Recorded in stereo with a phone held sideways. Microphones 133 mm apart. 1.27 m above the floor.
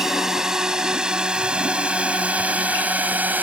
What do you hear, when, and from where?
0.0 s a drone: 5° right (ahead or behind); by 3.4 s 15° right (ahead or behind)